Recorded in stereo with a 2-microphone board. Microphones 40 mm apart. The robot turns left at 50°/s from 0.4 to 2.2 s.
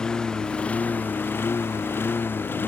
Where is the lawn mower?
20° left (ahead or behind); by 2.7 s 65° left (ahead or behind).